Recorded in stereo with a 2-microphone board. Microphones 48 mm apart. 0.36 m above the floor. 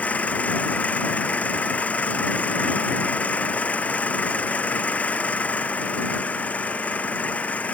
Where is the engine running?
30° left (ahead or behind).